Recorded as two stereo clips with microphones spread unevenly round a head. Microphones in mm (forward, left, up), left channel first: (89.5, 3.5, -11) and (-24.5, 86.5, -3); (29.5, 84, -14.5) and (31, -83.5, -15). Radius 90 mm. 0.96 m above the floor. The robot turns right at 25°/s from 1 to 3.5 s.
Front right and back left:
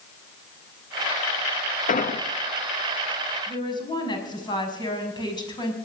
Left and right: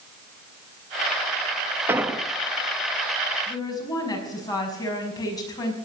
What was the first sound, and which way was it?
An explosion, 10° right.